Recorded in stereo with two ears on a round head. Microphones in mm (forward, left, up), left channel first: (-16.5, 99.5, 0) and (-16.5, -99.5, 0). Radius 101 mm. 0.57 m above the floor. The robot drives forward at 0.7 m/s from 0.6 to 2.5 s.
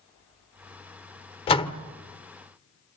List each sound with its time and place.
1.5 s a door slam: 25° left (ahead or behind), 1.2 m; by 1.8 s 20° left (ahead or behind), 1.4 m